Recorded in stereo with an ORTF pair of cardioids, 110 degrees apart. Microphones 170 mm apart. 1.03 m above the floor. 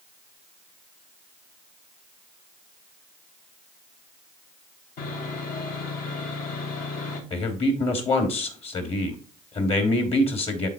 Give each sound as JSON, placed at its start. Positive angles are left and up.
{"t": 5.0, "sound": "sawing", "azimuth_deg": 65, "distance_m": 3.5}
{"t": 7.3, "sound": "a man speaking", "azimuth_deg": 40, "distance_m": 2.5}